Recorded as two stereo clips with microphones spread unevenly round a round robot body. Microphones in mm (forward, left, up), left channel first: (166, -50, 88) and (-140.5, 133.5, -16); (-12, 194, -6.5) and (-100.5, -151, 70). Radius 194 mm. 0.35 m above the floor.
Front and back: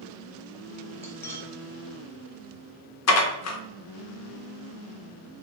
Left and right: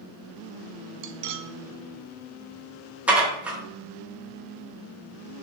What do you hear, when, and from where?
1.0 s cutlery clinking: 130° right, 0.5 m
3.1 s dishes clattering: straight ahead, 0.8 m